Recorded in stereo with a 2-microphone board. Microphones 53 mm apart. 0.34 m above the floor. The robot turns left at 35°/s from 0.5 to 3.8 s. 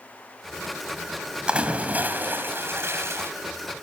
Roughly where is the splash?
Ahead right.